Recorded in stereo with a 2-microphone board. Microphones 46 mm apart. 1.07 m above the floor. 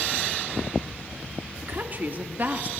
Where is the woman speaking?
45° right (ahead or behind), 2.5 m; by 2.7 s 40° right (ahead or behind), 1.5 m.